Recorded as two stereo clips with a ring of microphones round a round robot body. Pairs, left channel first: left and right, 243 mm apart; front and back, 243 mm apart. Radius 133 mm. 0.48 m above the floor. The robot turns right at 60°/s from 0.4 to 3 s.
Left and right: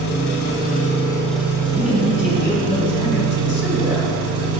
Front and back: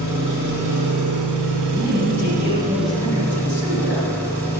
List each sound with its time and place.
0.0 s an engine running: 125° left, 1.7 m; by 4.6 s 80° right, 1.7 m
1.7 s a man speaking: 35° right, 1.9 m; by 4.1 s 45° left, 1.9 m